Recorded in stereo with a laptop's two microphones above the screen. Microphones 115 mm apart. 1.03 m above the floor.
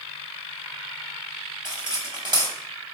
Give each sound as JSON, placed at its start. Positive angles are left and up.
{"t": 1.6, "sound": "cutlery clinking", "side_deg": -40, "distance_m": 1.1}